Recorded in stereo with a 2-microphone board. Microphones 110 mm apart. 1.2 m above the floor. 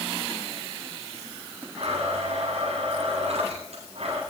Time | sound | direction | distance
1.8 | a blender | 75° right (ahead or behind) | 9 m